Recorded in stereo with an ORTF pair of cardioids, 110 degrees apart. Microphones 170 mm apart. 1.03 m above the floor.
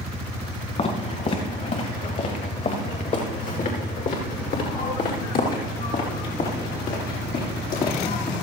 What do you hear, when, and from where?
0.8 s footsteps: 40° left, 6.5 m; by 8.3 s 60° left, 11 m